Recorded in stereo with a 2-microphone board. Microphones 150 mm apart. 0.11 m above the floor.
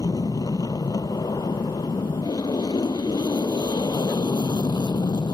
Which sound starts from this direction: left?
An aircraft, at 0.0 s.